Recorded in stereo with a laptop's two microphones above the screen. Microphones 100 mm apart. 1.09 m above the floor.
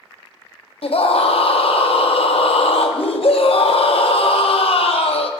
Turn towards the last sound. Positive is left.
turn(degrees=70)  # may be behind; listen again after turning